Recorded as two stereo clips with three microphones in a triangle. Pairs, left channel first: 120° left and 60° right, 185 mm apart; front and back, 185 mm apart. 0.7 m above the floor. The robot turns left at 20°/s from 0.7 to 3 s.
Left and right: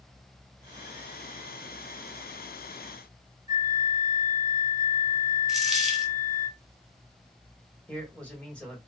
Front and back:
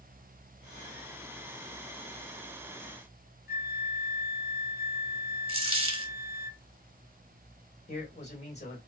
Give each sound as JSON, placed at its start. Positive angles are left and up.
{"t": 3.5, "sound": "a flute", "azimuth_deg": 10, "distance_m": 0.5}
{"t": 5.5, "sound": "a dropped coin", "azimuth_deg": -150, "distance_m": 0.8}
{"t": 7.9, "sound": "a man speaking", "azimuth_deg": 40, "distance_m": 1.4}